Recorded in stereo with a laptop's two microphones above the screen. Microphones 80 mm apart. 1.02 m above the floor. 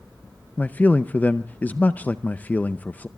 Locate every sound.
0.6 s a man speaking: 20° left (ahead or behind), 0.5 m